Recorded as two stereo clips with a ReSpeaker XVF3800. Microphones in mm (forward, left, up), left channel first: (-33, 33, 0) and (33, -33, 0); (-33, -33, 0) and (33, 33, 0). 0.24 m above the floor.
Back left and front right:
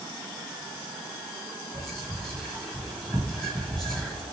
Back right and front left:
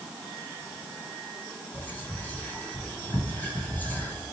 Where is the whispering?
155° right, 1.1 m.